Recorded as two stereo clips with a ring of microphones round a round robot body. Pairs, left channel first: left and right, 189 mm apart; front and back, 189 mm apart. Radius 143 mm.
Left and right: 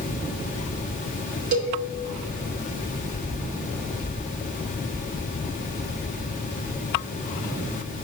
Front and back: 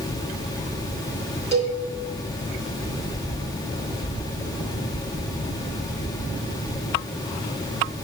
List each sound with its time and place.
1.5 s a cowbell: 115° right, 1.9 m